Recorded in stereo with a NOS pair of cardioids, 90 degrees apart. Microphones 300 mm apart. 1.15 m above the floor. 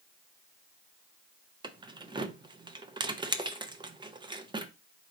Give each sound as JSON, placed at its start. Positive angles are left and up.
{"t": 1.6, "sound": "keys jangling", "azimuth_deg": -15, "distance_m": 0.7}